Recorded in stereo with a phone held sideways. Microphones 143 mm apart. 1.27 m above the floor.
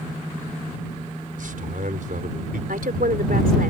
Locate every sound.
1.4 s a man speaking: 70° right (ahead or behind)
2.7 s a woman speaking: 80° right